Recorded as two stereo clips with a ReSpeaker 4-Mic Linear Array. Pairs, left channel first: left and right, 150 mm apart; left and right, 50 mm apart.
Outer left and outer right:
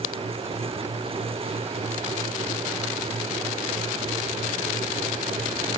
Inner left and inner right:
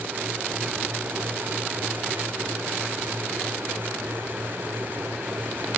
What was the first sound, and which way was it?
Only background noise.